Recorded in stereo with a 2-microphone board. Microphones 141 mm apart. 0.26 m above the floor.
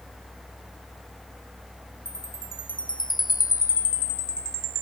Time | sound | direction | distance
2.0 | a chime | 80° left | ?